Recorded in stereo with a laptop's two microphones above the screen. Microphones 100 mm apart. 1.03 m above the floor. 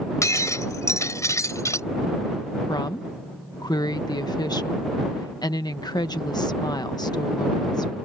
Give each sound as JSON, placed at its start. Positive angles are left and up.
{"t": 0.2, "sound": "breaking glass", "side_deg": 30}
{"t": 2.7, "sound": "a woman speaking", "side_deg": 40}